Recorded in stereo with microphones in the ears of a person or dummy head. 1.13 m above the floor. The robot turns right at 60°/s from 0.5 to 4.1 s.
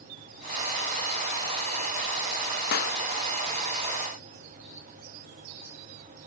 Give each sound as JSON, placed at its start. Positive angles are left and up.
{"t": 2.7, "sound": "a clap", "side_deg": 50, "distance_m": 1.6}